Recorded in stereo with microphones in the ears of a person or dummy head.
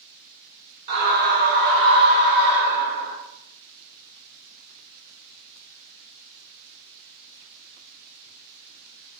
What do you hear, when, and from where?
0.9 s a scream: 35° right (ahead or behind), 0.7 m; by 3.2 s 80° right, 1.5 m